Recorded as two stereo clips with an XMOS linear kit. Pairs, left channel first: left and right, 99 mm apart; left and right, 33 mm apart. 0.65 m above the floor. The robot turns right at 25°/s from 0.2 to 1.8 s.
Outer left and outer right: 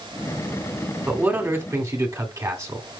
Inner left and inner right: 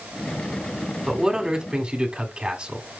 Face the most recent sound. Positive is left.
turn(degrees=-30)  # may be behind; listen again after turning